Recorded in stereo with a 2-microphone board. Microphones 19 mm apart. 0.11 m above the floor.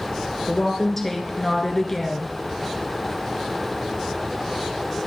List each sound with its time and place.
0.5 s a woman speaking: 15° left (ahead or behind), 1.3 m